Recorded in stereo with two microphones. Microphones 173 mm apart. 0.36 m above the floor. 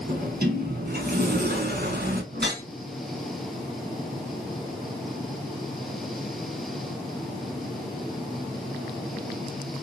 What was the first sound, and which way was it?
A sliding door, 60° right (ahead or behind).